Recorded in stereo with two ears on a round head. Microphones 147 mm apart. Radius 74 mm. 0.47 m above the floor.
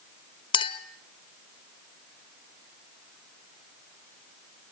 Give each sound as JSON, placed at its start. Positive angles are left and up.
{"t": 0.5, "sound": "a clink", "side_deg": 30, "distance_m": 1.3}